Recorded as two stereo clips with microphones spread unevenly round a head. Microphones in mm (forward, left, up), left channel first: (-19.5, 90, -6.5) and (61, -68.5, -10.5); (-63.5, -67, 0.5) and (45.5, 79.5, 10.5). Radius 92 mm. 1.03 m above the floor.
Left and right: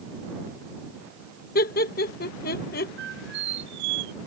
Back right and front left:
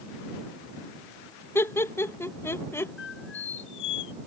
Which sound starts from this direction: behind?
Laughter, at 1.6 s.